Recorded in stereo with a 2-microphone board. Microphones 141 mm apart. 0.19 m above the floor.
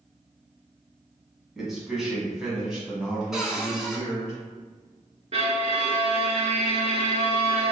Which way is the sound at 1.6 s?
Centre (ahead or behind).